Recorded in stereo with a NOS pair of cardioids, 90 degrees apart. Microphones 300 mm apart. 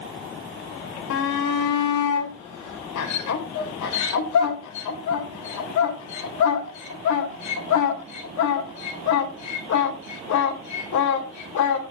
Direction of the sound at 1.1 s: 70° left.